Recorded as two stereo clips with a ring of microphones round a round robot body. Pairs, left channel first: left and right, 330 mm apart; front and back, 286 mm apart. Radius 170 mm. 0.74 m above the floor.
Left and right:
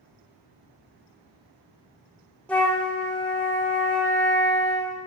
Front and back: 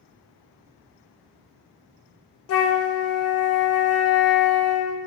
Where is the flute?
5° left, 0.6 m.